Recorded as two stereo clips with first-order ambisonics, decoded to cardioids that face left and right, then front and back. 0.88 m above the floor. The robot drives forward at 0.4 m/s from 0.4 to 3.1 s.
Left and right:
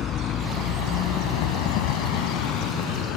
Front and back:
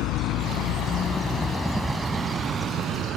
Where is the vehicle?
35° left; by 3.2 s 125° left.